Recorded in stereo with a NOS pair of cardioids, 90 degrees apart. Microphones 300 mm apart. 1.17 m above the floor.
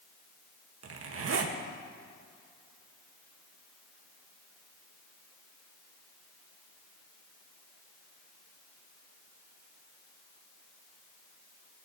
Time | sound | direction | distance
0.8 | a zipper | 50° right | 1.5 m